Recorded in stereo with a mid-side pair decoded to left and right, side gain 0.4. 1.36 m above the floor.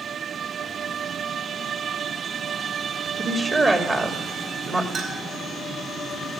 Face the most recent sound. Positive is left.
turn(degrees=-60)